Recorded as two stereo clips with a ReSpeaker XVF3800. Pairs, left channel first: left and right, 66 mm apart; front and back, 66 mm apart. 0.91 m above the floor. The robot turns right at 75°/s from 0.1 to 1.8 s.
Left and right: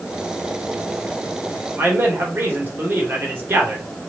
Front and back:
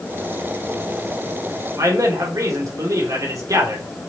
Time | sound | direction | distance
1.8 | a man speaking | 150° right | 3 m